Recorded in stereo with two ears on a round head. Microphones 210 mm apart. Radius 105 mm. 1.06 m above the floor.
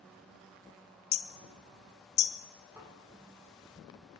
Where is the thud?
10° right (ahead or behind), 8.5 m.